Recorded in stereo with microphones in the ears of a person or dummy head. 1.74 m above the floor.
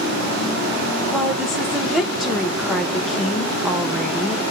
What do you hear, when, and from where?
1.1 s a woman speaking: 10° right (ahead or behind), 1.2 m